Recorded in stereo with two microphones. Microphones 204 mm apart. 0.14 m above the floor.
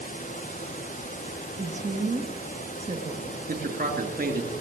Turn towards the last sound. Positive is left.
turn(degrees=-45)  # may be behind; listen again after turning